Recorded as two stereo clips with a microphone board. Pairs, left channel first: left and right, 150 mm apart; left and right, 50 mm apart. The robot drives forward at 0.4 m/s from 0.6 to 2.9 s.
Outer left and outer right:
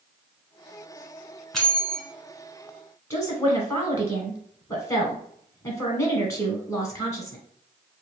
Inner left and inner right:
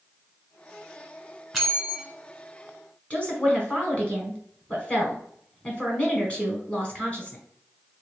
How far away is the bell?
About 1.3 m.